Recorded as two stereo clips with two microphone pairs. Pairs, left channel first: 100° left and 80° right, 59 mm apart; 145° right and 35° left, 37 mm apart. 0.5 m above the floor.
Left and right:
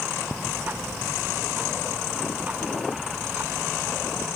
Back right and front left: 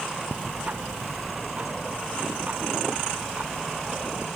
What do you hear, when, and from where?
0.3 s ticking: 15° right